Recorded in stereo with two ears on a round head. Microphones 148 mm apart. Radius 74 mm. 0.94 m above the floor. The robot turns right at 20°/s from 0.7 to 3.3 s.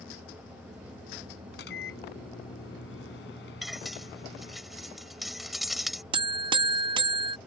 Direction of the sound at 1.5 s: 65° left.